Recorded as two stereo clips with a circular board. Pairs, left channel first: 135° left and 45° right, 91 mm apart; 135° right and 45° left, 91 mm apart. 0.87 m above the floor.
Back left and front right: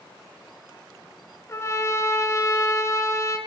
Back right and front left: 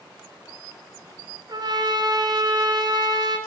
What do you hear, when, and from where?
1.5 s a trumpet: 80° left, 2.5 m